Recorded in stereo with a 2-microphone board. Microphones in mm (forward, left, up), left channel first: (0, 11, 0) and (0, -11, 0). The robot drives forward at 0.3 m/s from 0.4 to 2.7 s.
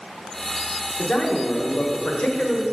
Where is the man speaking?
70° left (ahead or behind), 1.5 m; by 2.6 s 80° left, 1.4 m.